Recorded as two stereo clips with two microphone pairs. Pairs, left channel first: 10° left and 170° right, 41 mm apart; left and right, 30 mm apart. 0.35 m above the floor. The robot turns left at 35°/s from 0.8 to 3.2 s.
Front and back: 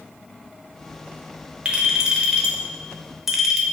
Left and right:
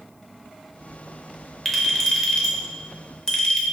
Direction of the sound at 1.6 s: 170° left.